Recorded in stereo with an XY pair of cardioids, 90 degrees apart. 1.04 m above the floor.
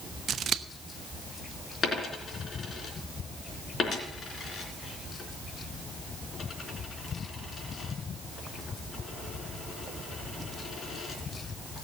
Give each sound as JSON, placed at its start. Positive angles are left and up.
{"t": 0.3, "sound": "scissors", "azimuth_deg": -60, "distance_m": 0.8}
{"t": 1.8, "sound": "a dropped coin", "azimuth_deg": 50, "distance_m": 3.5}